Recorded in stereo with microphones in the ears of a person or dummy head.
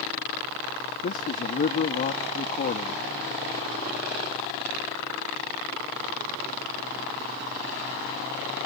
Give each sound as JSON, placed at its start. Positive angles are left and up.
{"t": 1.0, "sound": "a man speaking", "side_deg": 40}